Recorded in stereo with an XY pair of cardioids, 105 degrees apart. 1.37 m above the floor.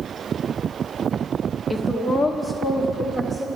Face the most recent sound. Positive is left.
turn(degrees=-15)